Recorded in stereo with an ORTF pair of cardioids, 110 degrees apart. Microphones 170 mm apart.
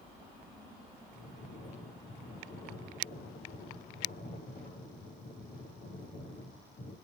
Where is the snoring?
70° left, 7.5 m.